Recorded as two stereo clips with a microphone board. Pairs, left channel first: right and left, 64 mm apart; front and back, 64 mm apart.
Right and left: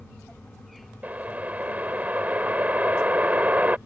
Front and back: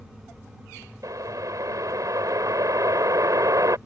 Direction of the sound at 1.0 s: 155° left.